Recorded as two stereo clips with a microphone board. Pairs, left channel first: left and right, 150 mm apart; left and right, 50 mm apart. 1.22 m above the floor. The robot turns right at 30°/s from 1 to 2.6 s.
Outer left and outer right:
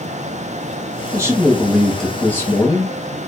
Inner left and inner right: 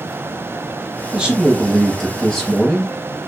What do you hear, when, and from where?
1.1 s a man speaking: 20° right, 1.8 m; by 3.0 s 20° left, 1.8 m